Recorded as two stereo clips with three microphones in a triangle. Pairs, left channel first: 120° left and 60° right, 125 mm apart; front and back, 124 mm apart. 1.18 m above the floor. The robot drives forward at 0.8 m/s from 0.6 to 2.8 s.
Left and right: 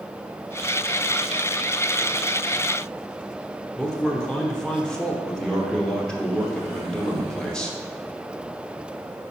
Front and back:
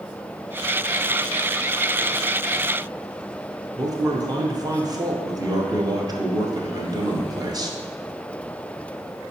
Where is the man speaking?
165° right, 0.6 m.